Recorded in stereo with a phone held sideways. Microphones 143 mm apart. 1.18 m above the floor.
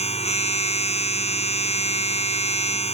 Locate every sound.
0.0 s a machine running: 50° left (ahead or behind)